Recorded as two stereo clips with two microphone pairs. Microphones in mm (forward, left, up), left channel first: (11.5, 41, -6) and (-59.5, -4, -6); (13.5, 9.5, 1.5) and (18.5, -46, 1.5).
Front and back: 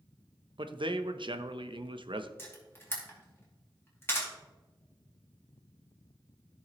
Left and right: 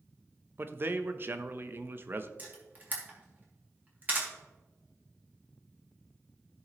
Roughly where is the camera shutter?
Ahead right.